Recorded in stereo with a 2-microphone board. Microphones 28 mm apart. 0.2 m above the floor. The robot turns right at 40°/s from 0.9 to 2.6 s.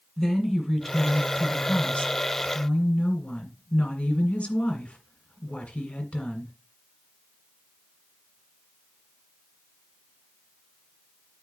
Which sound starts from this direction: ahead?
A woman speaking, at 0.2 s.